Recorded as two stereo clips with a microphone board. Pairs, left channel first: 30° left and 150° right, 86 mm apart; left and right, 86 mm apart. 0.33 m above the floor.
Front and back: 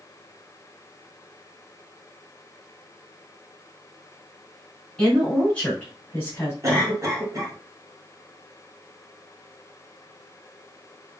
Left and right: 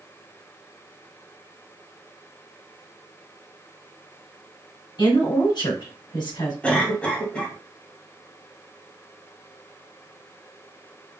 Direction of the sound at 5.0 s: 110° left.